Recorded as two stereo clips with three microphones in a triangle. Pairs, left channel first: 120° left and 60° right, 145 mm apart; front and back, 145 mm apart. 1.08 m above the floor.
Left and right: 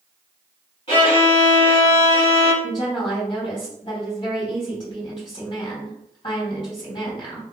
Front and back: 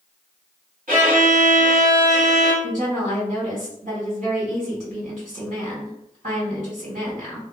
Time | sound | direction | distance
0.9 | a violin | 165° left | 2.0 m
2.6 | a woman speaking | 165° left | 2.0 m